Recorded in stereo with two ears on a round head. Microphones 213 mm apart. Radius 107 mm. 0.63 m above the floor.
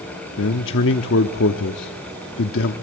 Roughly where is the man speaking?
Left.